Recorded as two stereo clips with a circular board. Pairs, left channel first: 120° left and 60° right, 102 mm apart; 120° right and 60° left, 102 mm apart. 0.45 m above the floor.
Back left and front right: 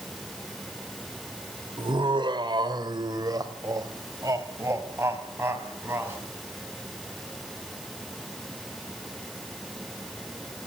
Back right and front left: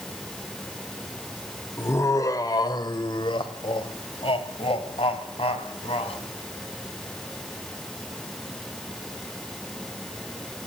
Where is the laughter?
65° right, 1.6 m; by 6.2 s 130° right, 3.5 m.